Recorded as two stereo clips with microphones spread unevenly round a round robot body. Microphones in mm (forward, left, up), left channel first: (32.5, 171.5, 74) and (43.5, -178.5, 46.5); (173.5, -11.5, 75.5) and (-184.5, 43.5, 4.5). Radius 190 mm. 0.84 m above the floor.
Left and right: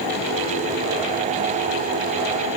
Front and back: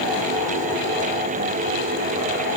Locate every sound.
Only background noise.